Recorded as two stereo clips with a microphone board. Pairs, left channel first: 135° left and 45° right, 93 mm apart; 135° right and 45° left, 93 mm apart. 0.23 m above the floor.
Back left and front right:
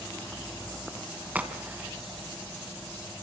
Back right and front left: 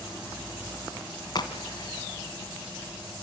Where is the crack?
115° right, 2.5 m.